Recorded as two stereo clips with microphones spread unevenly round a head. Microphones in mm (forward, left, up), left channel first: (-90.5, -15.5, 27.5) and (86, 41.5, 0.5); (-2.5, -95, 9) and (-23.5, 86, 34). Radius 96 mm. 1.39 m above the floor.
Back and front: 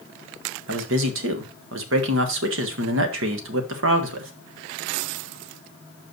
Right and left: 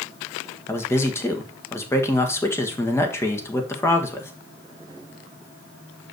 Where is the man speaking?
5° right, 1.4 m.